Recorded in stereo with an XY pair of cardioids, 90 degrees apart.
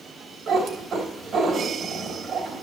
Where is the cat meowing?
55° right, 3 m.